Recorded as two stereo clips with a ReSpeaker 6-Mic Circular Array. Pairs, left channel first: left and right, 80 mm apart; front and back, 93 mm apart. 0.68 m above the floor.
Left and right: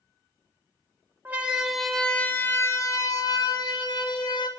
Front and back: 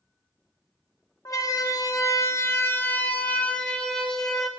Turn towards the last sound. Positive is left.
turn(degrees=85)